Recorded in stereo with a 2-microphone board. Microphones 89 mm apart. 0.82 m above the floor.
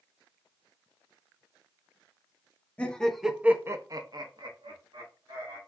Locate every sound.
2.8 s laughter: 15° left (ahead or behind), 0.8 m; by 5.6 s 70° right (ahead or behind), 1.5 m